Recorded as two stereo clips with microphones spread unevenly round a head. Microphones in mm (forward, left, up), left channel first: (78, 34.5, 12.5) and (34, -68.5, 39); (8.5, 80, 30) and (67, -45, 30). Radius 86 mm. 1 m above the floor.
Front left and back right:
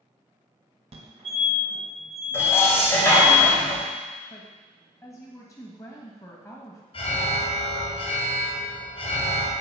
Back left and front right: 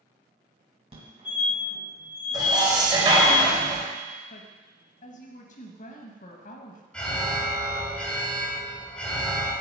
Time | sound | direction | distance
0.9 | a fire alarm | 90° right | 1.8 m
2.3 | dishes clattering | 5° right | 4 m
4.3 | a woman speaking | 125° left | 1.5 m
6.9 | an alarm | 35° left | 3.5 m